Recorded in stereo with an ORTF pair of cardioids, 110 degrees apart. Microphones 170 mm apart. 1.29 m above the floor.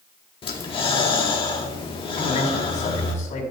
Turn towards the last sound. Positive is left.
turn(degrees=45)